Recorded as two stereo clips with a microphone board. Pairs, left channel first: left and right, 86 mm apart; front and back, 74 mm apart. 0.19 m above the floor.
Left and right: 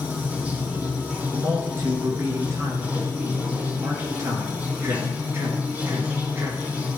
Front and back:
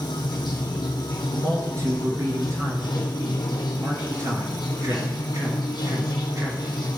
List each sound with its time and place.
0.0 s running water: 15° right, 1.6 m
1.3 s a man speaking: 145° right, 3 m